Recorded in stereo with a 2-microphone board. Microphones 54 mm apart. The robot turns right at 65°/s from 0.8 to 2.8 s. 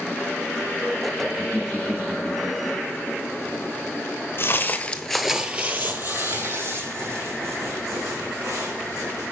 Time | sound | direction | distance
1.4 | laughter | 30° right (ahead or behind) | 1.2 m
4.4 | footsteps | 50° left (ahead or behind) | 0.9 m